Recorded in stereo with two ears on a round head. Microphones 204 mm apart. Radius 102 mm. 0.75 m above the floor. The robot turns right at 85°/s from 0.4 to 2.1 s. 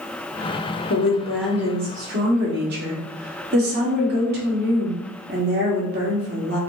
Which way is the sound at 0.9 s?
130° left.